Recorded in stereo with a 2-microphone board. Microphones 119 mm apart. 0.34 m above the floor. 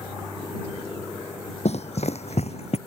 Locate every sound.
1.6 s running footsteps: 70° left (ahead or behind); by 2.8 s 60° left (ahead or behind)